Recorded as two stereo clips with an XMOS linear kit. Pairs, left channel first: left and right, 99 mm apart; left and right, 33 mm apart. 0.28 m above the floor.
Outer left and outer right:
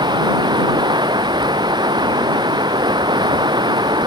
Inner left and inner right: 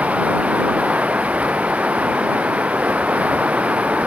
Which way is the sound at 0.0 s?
50° right (ahead or behind).